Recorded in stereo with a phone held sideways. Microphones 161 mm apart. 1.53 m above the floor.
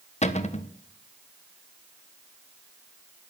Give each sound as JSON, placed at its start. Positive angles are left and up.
{"t": 0.2, "sound": "a cupboard door", "side_deg": 45, "distance_m": 1.2}